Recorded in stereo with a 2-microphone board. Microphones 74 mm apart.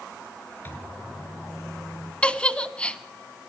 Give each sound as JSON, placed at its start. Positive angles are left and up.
{"t": 0.7, "sound": "a microwave", "side_deg": 30, "distance_m": 4.0}
{"t": 2.2, "sound": "a giggle", "side_deg": 15, "distance_m": 0.9}